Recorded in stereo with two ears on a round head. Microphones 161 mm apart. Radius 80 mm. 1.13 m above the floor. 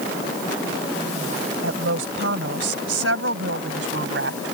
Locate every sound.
1.6 s a woman speaking: 90° right; by 4.5 s 75° right (ahead or behind)